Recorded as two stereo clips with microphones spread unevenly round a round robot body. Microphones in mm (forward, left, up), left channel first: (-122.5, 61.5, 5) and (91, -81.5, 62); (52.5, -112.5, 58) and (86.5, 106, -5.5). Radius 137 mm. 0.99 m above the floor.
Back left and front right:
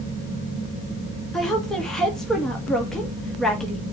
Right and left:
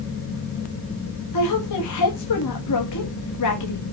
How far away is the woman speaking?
About 1.6 m.